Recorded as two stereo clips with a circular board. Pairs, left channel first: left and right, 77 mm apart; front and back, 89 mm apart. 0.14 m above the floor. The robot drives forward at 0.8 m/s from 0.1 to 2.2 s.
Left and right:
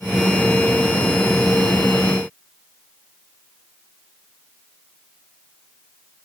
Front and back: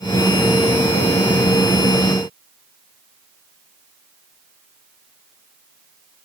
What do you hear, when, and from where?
Only background noise.